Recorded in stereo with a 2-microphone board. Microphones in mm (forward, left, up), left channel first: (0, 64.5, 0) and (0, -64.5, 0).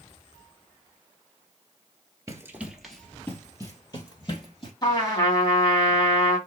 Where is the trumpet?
35° left (ahead or behind), 2 m.